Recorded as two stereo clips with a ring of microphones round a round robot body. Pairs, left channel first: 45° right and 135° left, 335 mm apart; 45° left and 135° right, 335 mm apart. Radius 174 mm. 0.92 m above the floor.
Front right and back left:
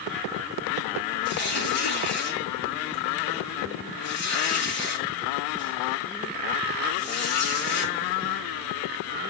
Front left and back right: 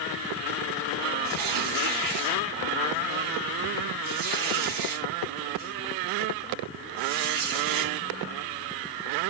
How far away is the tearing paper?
About 6.5 m.